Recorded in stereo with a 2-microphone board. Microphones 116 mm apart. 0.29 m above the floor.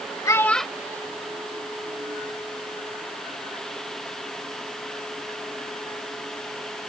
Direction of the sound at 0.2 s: 30° left (ahead or behind).